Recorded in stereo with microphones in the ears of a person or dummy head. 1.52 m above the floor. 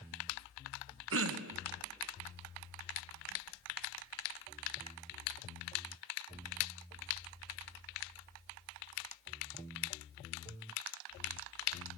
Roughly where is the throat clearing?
Right.